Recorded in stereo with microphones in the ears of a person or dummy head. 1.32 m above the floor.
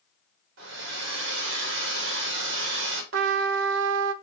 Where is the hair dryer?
70° right (ahead or behind), 2.0 m.